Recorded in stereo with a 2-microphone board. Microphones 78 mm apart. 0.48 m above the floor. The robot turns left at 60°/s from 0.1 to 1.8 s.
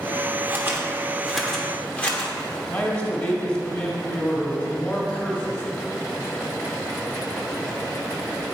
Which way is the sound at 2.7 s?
15° left (ahead or behind).